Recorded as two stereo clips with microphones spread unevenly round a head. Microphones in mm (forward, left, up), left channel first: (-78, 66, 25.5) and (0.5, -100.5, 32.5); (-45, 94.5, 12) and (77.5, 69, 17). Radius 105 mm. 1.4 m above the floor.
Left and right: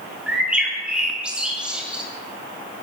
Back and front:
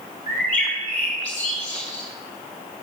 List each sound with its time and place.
0.3 s a bird: 150° right, 2.5 m